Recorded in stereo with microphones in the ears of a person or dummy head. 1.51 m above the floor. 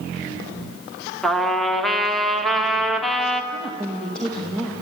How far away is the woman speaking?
About 2.5 m.